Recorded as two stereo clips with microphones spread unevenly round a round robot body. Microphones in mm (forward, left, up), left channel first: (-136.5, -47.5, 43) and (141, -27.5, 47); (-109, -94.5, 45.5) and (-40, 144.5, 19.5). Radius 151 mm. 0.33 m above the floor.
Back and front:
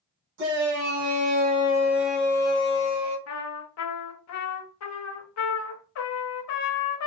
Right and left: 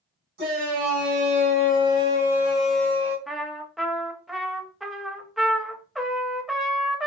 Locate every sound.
0.4 s a shout: 40° left, 1.5 m; by 3.2 s 170° left, 1.1 m
3.3 s a trumpet: 160° left, 0.6 m